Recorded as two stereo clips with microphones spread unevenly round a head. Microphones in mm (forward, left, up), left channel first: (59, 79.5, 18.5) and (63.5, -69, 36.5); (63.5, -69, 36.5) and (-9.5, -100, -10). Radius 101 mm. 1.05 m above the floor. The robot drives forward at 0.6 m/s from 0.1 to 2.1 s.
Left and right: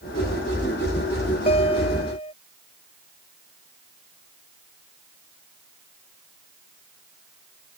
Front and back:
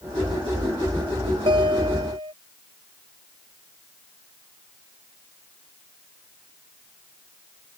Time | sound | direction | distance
1.5 | a guitar | 155° left | ?